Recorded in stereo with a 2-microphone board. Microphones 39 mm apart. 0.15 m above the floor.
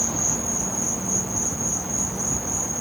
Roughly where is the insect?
Centre.